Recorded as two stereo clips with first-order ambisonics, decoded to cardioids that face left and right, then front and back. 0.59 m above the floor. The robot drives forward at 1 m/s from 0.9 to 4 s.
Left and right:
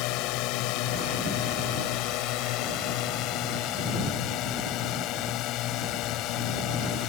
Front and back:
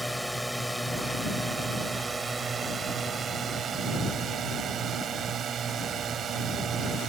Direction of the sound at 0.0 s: 95° left.